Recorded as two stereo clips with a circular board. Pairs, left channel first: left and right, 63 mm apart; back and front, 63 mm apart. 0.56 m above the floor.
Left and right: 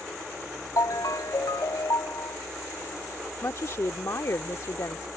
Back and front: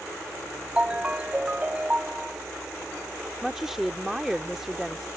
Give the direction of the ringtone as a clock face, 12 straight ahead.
10 o'clock.